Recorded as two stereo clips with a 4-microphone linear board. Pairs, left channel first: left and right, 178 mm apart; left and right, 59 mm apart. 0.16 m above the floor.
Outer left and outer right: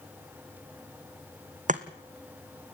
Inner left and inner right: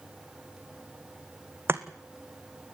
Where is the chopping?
45° right (ahead or behind), 1.4 m.